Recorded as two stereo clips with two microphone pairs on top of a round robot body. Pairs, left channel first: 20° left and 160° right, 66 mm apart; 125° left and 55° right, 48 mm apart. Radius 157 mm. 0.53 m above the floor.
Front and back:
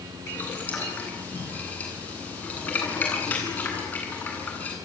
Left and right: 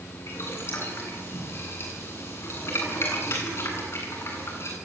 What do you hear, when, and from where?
0.3 s boiling: 85° left, 9.5 m